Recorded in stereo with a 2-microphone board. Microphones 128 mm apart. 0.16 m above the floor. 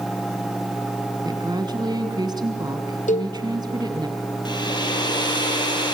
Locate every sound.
1.2 s a woman speaking: 35° right (ahead or behind), 1.4 m
3.1 s a cowbell: 75° left (ahead or behind), 1.1 m
4.5 s a hair dryer: 35° left (ahead or behind), 4.5 m